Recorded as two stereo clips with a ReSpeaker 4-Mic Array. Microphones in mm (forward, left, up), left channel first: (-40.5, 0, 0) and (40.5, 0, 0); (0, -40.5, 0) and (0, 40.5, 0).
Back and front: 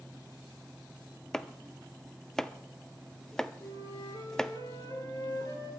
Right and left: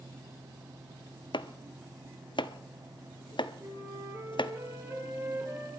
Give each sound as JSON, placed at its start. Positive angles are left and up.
{"t": 1.3, "sound": "chopping", "azimuth_deg": -95, "distance_m": 0.6}
{"t": 3.6, "sound": "a flute", "azimuth_deg": 140, "distance_m": 3.0}